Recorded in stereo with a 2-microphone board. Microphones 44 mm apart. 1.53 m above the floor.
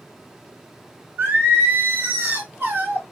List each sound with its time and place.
1.2 s singing: 50° right (ahead or behind), 1.2 m